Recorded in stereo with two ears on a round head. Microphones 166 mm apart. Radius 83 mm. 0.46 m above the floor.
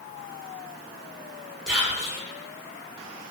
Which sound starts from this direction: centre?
Whispering, at 1.7 s.